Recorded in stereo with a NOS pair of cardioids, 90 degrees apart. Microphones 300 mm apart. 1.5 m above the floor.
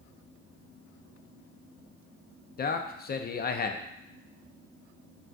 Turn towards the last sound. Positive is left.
turn(degrees=30)